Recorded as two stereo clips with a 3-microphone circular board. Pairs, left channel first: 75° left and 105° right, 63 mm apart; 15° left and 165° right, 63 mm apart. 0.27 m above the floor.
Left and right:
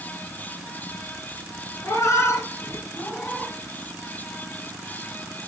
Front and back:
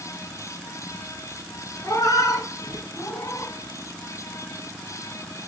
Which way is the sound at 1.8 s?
40° left.